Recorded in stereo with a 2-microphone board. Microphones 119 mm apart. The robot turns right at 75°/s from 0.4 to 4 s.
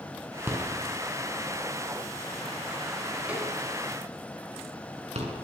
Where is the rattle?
20° right (ahead or behind), 7 m; by 5.3 s 65° right (ahead or behind), 7 m.